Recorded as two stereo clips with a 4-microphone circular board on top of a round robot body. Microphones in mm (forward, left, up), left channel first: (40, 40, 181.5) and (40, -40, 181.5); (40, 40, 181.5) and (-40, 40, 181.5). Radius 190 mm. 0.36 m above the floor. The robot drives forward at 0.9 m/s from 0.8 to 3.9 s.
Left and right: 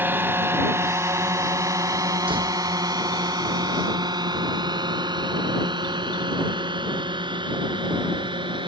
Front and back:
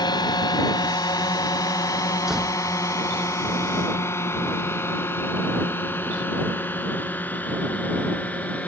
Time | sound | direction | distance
0.0 | a drone | 25° right | ?
2.3 | a door slam | 95° right | ?